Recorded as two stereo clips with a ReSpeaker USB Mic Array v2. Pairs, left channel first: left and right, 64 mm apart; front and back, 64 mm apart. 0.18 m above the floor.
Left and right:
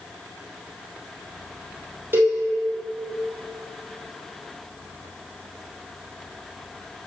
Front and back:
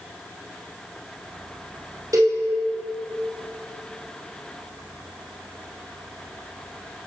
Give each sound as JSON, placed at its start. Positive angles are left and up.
{"t": 2.1, "sound": "a cowbell", "azimuth_deg": -145, "distance_m": 2.5}